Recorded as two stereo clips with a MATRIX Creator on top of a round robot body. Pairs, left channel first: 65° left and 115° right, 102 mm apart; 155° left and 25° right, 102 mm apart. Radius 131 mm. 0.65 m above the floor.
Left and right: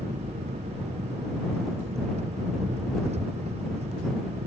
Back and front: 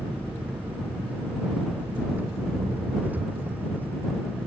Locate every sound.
0.0 s an engine running: 95° right